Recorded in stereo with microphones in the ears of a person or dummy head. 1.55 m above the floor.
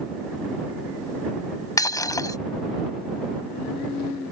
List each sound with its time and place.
1.8 s breaking glass: 15° left (ahead or behind)